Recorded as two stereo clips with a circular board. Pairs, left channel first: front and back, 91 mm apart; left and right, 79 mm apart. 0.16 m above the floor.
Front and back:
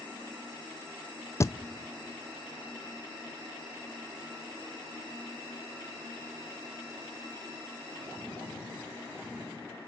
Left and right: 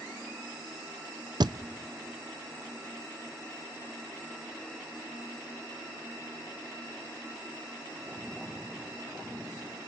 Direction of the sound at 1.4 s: 60° right.